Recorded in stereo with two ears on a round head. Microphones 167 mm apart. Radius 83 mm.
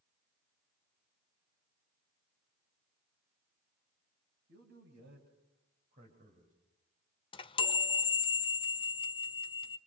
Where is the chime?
25° left (ahead or behind), 0.8 m.